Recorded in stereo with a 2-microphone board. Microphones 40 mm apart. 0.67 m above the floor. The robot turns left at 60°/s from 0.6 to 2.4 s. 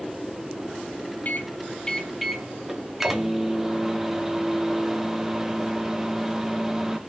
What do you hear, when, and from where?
1.2 s a microwave: 55° left, 0.7 m; by 7.0 s 10° right, 0.7 m